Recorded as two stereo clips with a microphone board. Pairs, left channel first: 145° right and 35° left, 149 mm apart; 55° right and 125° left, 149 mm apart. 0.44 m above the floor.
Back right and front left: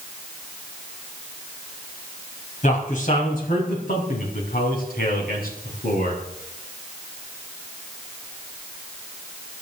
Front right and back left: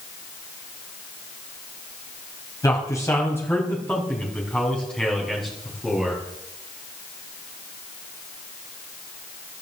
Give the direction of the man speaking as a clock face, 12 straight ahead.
4 o'clock.